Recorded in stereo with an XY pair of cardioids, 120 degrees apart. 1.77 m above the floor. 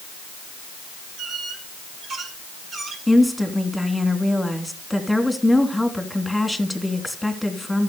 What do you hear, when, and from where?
1.2 s a squeak: 55° right, 5.5 m
3.1 s a woman speaking: straight ahead, 3 m